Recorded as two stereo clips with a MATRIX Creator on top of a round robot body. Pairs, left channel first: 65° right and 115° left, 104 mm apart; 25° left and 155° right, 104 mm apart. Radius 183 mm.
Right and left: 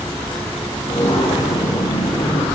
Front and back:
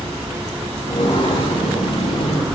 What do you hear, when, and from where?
0.9 s footsteps: 20° right, 7 m